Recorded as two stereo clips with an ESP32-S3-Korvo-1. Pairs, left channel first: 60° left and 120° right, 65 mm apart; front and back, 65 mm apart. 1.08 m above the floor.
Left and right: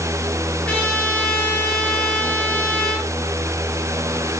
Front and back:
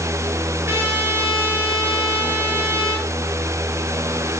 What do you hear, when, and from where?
0.7 s a trumpet: 130° left, 6 m